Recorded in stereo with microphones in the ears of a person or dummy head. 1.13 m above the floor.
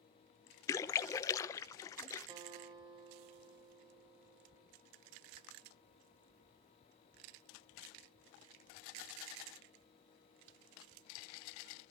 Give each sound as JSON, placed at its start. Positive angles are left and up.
{"t": 0.7, "sound": "a splash", "side_deg": 20, "distance_m": 0.8}
{"t": 2.3, "sound": "a guitar", "side_deg": -30, "distance_m": 3.0}